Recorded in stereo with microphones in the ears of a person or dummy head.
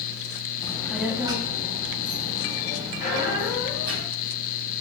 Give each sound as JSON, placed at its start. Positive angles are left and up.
{"t": 0.6, "sound": "a child speaking", "side_deg": 20, "distance_m": 0.5}
{"t": 3.0, "sound": "a squeak", "side_deg": 45, "distance_m": 1.0}